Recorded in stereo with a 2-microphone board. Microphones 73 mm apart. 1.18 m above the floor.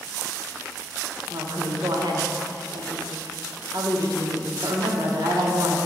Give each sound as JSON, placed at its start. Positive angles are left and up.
{"t": 1.3, "sound": "a woman speaking", "side_deg": -70, "distance_m": 1.3}